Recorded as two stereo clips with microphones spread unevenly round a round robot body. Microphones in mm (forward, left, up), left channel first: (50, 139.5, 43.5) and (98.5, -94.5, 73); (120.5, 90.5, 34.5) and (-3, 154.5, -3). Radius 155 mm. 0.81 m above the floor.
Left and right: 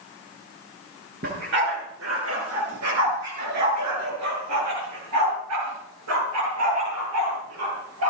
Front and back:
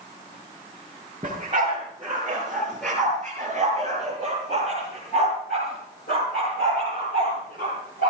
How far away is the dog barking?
About 6 m.